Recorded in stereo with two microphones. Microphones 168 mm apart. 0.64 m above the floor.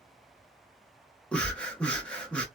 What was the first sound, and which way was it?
Breathing, 5° left (ahead or behind).